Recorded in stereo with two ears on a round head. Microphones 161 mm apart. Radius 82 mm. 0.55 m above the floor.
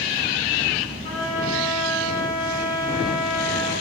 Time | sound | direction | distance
1.0 | a trumpet | 30° left (ahead or behind) | 6.5 m